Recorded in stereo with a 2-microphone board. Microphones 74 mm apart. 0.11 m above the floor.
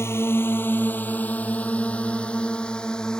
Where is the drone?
35° left (ahead or behind); by 3.2 s 10° left (ahead or behind).